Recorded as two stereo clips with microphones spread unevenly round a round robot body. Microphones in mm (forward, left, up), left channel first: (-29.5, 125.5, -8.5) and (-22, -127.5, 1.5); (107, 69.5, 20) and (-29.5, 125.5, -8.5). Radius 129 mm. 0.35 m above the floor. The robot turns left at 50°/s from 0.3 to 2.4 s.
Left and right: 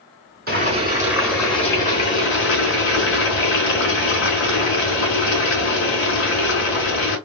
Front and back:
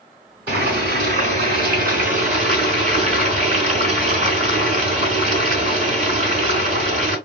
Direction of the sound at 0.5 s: 140° right.